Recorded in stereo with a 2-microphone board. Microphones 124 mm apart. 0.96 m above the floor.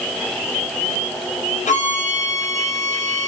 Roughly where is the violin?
Left.